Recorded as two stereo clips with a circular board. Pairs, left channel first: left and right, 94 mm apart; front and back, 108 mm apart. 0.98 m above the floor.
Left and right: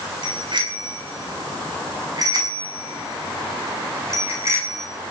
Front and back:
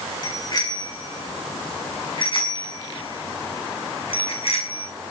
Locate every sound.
0.2 s a bicycle bell: 55° right, 7 m; by 4.9 s 25° right, 7 m